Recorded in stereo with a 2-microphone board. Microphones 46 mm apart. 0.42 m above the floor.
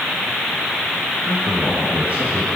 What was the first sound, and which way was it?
A man speaking, 25° right (ahead or behind).